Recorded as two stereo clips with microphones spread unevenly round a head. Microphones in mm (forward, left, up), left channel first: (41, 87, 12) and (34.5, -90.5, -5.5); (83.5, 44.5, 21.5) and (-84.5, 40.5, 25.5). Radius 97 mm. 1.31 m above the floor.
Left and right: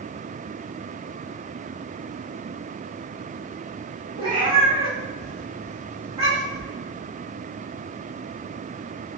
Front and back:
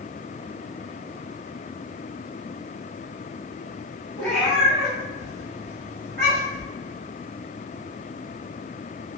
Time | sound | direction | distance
4.2 | a cat meowing | 60° right | 0.7 m